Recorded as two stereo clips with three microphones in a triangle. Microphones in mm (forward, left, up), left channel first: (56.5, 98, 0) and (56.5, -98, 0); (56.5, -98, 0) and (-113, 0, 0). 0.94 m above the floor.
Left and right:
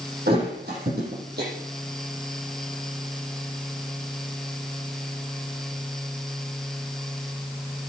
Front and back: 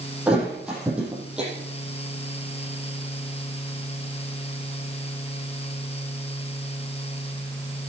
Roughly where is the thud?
Behind right.